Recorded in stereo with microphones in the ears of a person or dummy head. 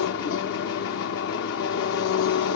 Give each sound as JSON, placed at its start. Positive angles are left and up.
{"t": 0.0, "sound": "an engine running", "side_deg": 50, "distance_m": 1.0}